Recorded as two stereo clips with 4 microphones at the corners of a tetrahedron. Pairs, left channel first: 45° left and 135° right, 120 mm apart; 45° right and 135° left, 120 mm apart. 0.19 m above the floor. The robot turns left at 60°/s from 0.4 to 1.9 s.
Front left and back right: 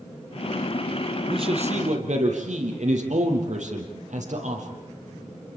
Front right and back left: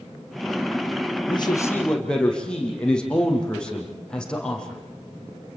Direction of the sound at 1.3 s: 90° right.